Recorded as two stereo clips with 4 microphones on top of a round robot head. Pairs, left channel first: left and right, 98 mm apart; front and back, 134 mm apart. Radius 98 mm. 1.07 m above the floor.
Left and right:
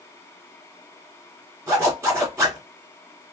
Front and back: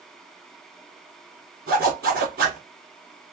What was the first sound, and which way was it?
A zipper, 150° right.